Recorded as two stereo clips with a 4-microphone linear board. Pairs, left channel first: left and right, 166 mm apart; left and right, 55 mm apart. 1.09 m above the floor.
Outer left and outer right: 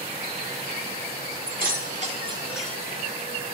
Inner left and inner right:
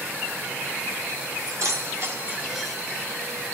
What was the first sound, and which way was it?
Keys jangling, 65° right (ahead or behind).